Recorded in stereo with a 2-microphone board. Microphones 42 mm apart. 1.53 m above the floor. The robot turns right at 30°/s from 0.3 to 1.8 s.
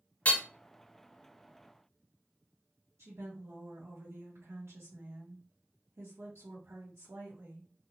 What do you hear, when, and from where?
0.2 s hammering: 35° left (ahead or behind), 0.7 m; by 0.4 s 40° left (ahead or behind), 0.7 m
3.0 s a woman speaking: 85° right, 1.0 m